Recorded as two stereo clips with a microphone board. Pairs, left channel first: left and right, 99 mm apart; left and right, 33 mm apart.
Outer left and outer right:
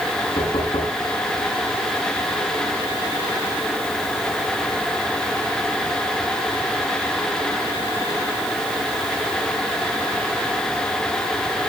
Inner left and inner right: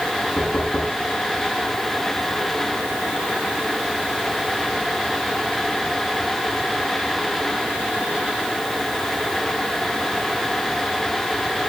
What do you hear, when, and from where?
0.4 s knocking: 75° left (ahead or behind), 6.5 m